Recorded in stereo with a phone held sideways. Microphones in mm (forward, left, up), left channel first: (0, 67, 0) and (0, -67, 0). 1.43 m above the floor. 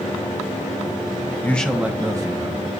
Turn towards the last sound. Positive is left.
turn(degrees=-35)  # may be behind; listen again after turning